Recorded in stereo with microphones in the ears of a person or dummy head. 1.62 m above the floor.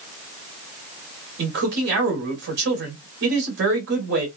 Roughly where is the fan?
I don't hear a fan.